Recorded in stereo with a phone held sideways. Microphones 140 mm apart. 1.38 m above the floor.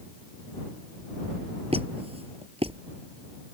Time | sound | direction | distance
1.7 | a squeak | 45° right (ahead or behind) | ?